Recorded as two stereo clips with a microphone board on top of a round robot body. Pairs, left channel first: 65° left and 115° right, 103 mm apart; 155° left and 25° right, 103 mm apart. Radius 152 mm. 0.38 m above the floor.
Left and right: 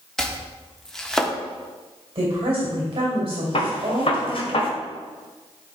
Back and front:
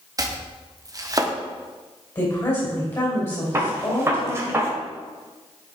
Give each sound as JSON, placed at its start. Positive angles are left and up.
{"t": 0.2, "sound": "chopping", "azimuth_deg": -15, "distance_m": 1.3}
{"t": 2.1, "sound": "a woman speaking", "azimuth_deg": -155, "distance_m": 3.0}
{"t": 3.5, "sound": "a gunshot", "azimuth_deg": 40, "distance_m": 1.6}